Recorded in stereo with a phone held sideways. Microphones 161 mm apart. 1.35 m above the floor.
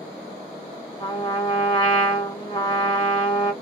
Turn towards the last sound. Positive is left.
turn(degrees=30)  # may be behind; listen again after turning